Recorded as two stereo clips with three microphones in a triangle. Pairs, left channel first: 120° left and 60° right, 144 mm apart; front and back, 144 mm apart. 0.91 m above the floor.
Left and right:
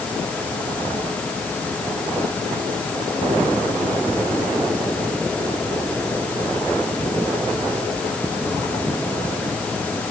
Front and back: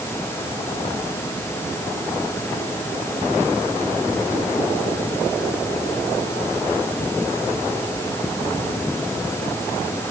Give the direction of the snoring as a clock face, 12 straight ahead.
No snoring in this recording.